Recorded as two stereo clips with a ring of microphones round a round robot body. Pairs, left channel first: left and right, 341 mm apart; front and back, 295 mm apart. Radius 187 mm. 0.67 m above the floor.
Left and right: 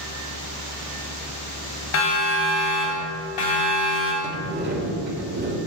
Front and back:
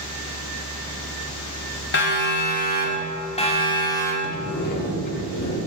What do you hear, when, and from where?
1.9 s a siren: 50° left, 5.5 m; by 4.1 s 80° left, 5 m
4.2 s a sliding door: 30° right, 2.5 m